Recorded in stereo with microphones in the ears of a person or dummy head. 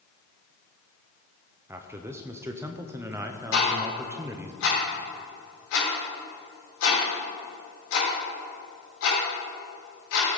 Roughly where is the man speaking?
Centre.